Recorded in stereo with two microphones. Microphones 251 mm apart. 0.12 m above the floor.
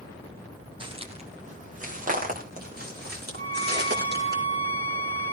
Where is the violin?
35° right (ahead or behind), 4.5 m.